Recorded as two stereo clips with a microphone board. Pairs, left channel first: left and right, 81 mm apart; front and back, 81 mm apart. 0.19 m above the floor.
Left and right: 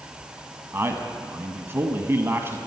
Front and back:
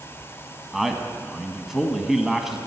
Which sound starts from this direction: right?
A man speaking, at 0.7 s.